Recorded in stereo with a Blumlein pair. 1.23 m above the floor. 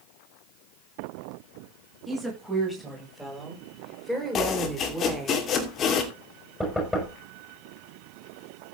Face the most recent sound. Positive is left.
turn(degrees=5)